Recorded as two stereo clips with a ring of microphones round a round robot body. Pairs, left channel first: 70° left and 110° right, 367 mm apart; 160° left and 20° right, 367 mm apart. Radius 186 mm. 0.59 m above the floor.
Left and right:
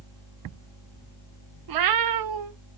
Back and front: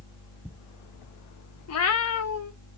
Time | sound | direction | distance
1.7 | a cat meowing | 150° right | 0.5 m